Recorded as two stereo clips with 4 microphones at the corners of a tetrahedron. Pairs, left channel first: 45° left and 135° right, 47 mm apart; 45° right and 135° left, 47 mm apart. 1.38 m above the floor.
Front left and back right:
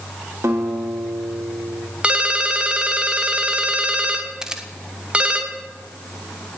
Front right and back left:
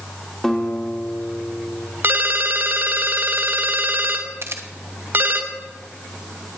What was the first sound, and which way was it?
A guitar, 125° right.